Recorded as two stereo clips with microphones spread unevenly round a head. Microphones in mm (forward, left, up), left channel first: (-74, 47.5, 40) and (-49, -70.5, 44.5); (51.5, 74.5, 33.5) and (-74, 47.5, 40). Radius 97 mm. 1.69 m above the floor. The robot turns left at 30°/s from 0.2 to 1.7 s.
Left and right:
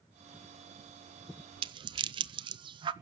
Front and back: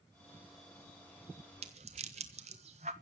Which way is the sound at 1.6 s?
115° right.